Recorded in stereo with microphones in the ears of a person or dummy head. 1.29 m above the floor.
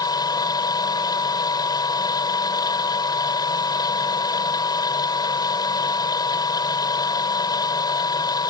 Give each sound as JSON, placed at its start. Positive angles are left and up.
{"t": 0.0, "sound": "a machine running", "side_deg": 20}